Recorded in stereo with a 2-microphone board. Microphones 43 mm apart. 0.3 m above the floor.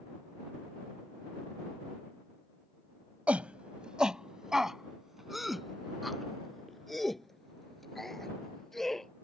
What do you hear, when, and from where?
3.3 s a shout: 35° right (ahead or behind); by 9.1 s 5° left (ahead or behind)